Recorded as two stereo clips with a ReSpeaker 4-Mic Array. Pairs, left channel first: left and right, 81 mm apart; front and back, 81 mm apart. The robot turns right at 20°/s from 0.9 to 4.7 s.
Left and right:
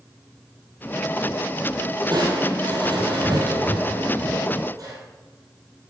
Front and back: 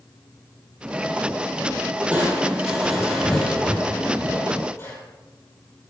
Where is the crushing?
105° right, 3 m; by 5.0 s 50° right, 3 m.